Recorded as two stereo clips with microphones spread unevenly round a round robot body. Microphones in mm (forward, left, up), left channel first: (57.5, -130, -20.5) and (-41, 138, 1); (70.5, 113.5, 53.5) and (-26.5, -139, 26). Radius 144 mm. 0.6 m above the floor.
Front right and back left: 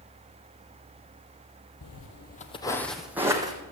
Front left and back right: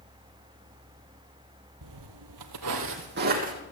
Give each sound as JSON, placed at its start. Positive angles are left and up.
{"t": 1.8, "sound": "footsteps", "azimuth_deg": -100, "distance_m": 1.2}